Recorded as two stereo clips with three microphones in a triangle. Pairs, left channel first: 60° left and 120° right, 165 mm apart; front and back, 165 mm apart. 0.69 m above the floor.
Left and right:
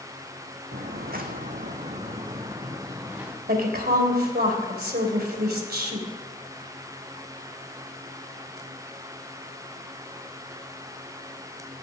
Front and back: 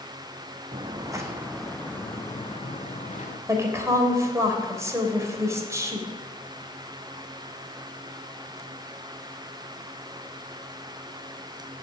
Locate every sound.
0.7 s footsteps: 125° right, 1.8 m; by 3.4 s 40° right, 2.5 m
3.5 s a woman speaking: 110° right, 2.5 m